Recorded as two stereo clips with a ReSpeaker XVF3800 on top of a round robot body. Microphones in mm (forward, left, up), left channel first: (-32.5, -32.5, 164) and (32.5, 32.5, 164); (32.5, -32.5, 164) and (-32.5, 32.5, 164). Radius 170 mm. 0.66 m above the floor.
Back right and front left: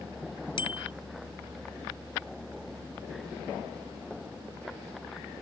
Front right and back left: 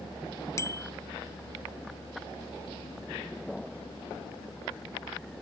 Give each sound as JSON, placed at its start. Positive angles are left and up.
{"t": 0.6, "sound": "a bicycle bell", "azimuth_deg": -105}